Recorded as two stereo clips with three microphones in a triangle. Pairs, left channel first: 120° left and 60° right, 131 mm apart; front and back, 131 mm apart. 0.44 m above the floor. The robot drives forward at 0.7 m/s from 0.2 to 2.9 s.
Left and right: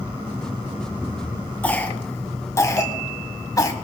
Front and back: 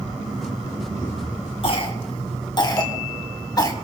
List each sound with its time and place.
1.6 s a cough: 40° left, 3 m; by 3.7 s 60° left, 2.5 m